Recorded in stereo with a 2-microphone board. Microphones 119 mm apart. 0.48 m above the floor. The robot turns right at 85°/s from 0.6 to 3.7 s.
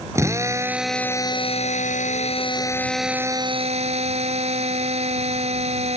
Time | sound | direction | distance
0.1 | a drill | 25° right | ?